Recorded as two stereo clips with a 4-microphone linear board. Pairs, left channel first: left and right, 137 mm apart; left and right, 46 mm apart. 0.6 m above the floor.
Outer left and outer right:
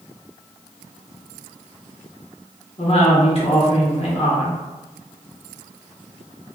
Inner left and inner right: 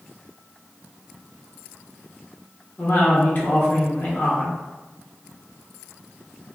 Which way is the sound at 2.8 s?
45° left (ahead or behind).